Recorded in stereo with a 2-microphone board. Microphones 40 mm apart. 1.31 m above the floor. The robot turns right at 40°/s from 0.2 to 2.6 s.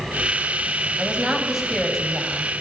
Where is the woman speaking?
30° right, 7 m; by 2.5 s 30° left, 7 m.